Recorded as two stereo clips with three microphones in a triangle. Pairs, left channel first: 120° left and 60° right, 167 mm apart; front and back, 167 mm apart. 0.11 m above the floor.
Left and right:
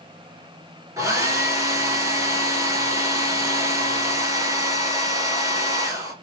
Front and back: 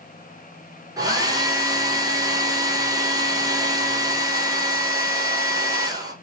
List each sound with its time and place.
1.0 s a hair dryer: 125° right, 1.0 m